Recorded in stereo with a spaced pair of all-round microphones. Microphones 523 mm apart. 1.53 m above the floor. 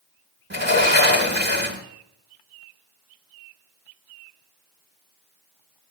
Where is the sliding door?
20° right (ahead or behind), 1.9 m.